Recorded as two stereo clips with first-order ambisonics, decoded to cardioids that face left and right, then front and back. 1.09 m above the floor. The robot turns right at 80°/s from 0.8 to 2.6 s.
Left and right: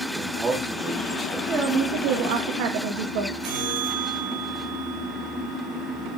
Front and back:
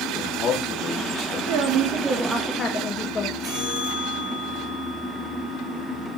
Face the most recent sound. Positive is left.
turn(degrees=-105)